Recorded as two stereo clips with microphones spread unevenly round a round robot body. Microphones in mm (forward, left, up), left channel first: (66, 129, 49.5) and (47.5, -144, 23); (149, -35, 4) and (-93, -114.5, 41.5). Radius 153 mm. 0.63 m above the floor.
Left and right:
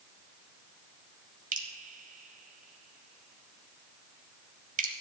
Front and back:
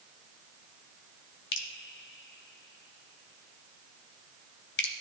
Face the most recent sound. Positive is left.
turn(degrees=-30)